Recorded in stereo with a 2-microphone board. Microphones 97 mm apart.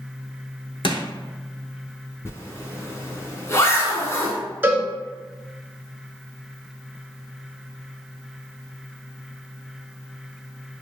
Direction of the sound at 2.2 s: 30° left (ahead or behind).